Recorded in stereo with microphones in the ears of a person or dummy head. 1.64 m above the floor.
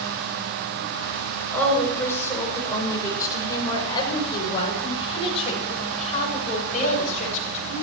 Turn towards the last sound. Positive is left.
turn(degrees=40)  # may be behind; listen again after turning